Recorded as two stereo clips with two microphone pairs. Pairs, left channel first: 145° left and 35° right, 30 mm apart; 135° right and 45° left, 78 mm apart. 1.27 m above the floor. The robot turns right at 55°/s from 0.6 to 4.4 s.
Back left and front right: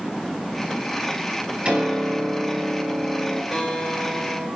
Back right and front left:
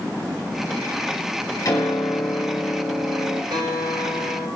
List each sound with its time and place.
1.6 s a piano: 90° right, 8.5 m; by 3.4 s 10° left, 8.5 m
3.5 s a guitar: 55° left, 9.5 m; by 4.5 s 105° left, 9.5 m